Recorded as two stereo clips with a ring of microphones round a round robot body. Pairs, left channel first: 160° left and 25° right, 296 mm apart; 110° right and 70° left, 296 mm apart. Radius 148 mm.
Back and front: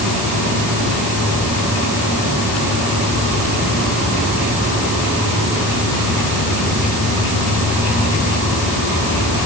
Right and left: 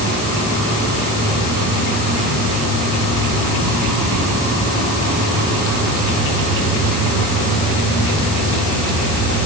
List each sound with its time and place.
Only background noise.